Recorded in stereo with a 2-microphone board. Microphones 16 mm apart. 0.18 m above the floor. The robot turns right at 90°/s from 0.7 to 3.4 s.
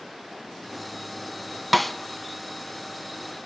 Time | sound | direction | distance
1.7 | a snare drum | centre (ahead or behind) | 0.5 m